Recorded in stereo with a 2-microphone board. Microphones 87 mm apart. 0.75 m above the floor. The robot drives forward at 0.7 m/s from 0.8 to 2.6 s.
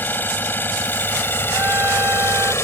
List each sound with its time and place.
0.0 s an engine running: 25° left (ahead or behind); by 2.6 s 30° left (ahead or behind)
1.5 s a trumpet: 25° right (ahead or behind); by 2.5 s 30° right (ahead or behind)